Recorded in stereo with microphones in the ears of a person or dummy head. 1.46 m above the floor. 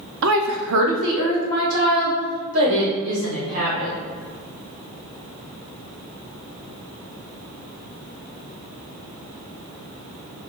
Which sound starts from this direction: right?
A woman speaking, at 0.2 s.